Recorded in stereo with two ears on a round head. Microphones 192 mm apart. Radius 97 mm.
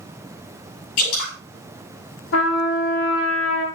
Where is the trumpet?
80° left, 5 m.